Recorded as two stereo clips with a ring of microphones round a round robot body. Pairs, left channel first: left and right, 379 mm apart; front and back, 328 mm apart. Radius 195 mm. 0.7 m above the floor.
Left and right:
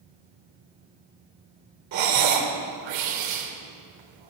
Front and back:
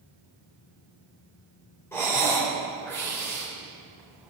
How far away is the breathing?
About 2.5 m.